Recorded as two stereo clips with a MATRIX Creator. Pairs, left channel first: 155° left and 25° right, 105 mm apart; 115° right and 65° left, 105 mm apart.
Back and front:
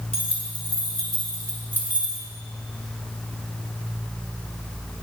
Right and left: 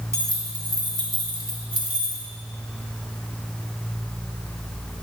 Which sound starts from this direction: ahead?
Keys jangling, at 0.1 s.